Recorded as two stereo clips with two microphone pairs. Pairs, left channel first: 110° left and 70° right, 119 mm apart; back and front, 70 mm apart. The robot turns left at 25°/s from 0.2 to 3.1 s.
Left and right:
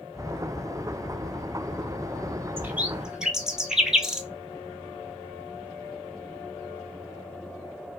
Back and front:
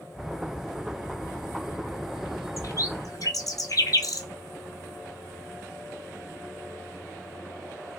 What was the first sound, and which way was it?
A bird, 140° right.